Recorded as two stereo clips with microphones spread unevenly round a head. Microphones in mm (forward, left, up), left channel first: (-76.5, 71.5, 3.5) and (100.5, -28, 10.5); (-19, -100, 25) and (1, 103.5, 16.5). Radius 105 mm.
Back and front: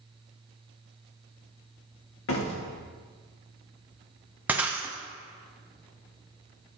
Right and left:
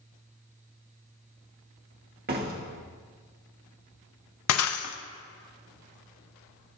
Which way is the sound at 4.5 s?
110° right.